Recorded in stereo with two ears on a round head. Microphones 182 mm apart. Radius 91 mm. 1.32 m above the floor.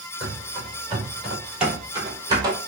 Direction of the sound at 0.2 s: 20° left (ahead or behind).